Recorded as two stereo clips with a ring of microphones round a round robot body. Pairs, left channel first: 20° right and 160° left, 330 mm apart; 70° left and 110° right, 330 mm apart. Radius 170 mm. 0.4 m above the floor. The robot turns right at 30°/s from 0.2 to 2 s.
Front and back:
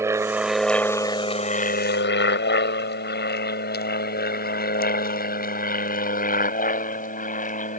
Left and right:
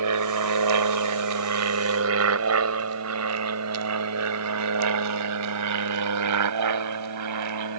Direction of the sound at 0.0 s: 120° right.